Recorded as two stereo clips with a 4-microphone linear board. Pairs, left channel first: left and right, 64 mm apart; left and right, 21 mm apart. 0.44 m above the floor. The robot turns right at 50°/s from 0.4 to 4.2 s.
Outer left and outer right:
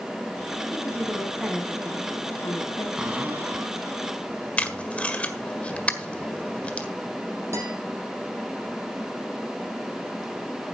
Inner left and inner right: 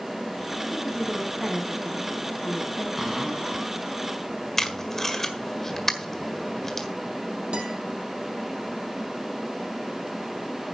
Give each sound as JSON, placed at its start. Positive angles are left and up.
{"t": 0.7, "sound": "a woman speaking", "azimuth_deg": -40, "distance_m": 3.5}
{"t": 3.0, "sound": "a cupboard door", "azimuth_deg": -165, "distance_m": 4.0}
{"t": 4.6, "sound": "tape being pulled", "side_deg": 20, "distance_m": 1.6}
{"t": 7.5, "sound": "a guitar", "side_deg": -45, "distance_m": 4.5}